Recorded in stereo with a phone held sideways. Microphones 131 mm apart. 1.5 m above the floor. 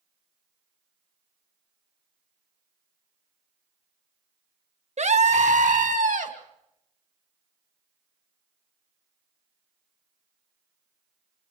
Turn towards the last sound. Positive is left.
turn(degrees=-75)  # may be behind; listen again after turning